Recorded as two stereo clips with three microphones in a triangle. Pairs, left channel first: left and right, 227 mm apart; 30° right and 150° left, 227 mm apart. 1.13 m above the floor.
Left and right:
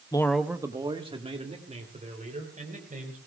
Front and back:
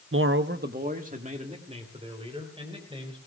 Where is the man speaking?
155° left, 0.6 m; by 3.2 s 145° right, 4.5 m.